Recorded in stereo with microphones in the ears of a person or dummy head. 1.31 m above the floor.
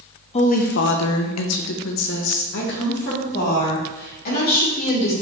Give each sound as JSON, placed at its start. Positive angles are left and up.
{"t": 0.3, "sound": "a woman speaking", "side_deg": 30, "distance_m": 0.6}